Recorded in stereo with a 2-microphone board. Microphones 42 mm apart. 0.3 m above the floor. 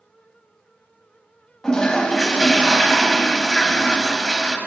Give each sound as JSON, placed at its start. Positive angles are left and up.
{"t": 1.6, "sound": "a toilet flushing", "side_deg": 15, "distance_m": 0.5}